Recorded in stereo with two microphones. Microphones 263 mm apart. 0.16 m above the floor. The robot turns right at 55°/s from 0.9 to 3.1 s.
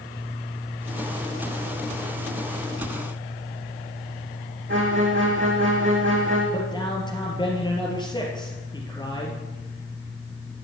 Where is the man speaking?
20° left (ahead or behind), 3.5 m.